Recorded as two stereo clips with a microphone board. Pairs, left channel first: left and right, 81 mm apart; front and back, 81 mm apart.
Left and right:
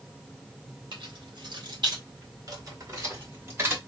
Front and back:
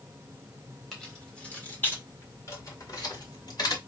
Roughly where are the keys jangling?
Right.